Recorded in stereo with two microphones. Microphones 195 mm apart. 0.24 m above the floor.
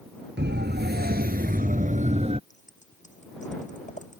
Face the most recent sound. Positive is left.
turn(degrees=40)  # may be behind; listen again after turning